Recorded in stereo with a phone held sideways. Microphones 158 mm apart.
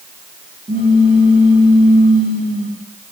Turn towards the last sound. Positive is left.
turn(degrees=-60)  # may be behind; listen again after turning